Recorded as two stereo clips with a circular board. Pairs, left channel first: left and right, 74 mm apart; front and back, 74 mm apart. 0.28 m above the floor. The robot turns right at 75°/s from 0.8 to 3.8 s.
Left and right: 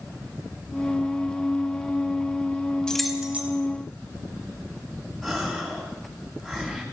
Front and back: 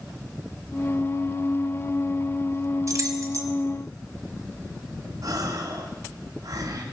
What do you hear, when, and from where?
2.9 s keys jangling: 165° left, 1.4 m; by 3.5 s 150° right, 1.4 m
5.2 s a gasp: straight behind, 2.5 m